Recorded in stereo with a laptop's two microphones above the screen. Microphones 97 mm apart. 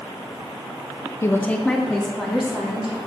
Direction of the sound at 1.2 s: 25° left (ahead or behind).